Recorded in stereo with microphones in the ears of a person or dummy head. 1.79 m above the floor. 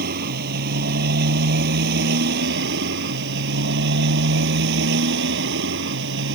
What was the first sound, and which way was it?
A motorcycle, 55° right (ahead or behind).